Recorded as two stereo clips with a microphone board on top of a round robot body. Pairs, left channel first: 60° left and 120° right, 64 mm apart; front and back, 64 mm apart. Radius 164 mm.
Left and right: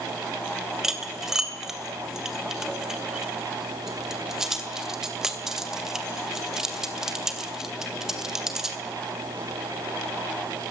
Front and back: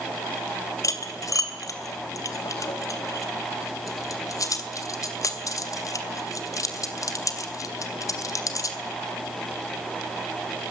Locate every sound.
0.8 s cutlery clinking: 35° right, 2.5 m